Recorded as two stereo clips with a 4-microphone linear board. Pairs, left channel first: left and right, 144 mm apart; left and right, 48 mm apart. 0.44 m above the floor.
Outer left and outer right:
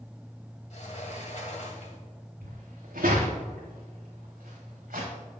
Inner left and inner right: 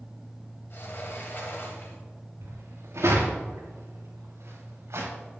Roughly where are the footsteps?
Right.